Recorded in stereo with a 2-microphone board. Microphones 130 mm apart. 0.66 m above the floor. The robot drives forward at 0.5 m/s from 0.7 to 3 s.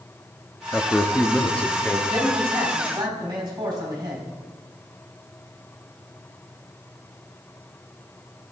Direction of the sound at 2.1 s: 35° right (ahead or behind).